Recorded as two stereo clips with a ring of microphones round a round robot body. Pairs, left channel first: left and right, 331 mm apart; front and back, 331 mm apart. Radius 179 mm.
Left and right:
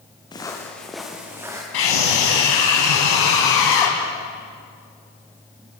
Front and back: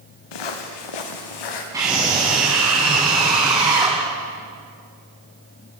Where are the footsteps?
10° left, 3.5 m; by 1.6 s 10° right, 5 m.